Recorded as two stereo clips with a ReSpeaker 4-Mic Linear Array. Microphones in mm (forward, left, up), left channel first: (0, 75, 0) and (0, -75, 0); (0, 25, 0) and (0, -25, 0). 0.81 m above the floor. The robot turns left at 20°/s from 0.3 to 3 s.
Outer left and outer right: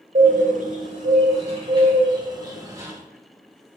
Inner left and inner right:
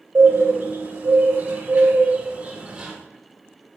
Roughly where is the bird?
Right.